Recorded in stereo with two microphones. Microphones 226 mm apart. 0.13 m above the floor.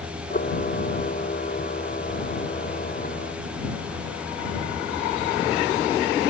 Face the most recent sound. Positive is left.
turn(degrees=40)  # may be behind; listen again after turning